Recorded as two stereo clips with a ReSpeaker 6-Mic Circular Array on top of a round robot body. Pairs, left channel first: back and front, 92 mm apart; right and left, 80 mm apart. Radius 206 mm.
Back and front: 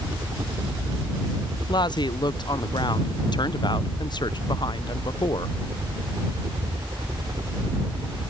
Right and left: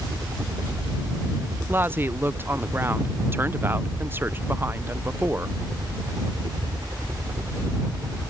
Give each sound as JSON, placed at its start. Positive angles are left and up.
{"t": 0.0, "sound": "a helicopter", "azimuth_deg": 45}
{"t": 1.7, "sound": "a woman speaking", "azimuth_deg": 150}